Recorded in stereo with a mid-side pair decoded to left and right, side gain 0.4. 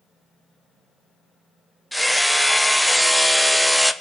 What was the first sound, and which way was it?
Hammering, 5° right.